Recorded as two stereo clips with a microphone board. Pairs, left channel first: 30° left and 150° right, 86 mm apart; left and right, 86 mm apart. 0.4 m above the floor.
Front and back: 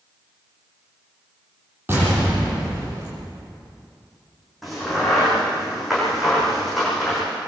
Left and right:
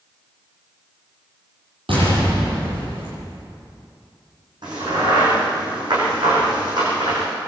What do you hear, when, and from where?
1.9 s an explosion: 85° right, 9 m
4.6 s a crack: 60° right, 9.5 m